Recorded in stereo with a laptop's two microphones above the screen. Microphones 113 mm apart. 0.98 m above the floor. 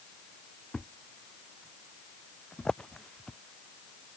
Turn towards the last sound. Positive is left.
turn(degrees=5)  # may be behind; listen again after turning